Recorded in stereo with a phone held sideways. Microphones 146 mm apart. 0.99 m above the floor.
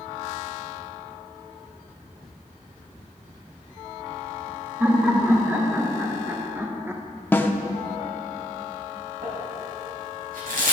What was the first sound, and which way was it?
Laughter, 15° right (ahead or behind).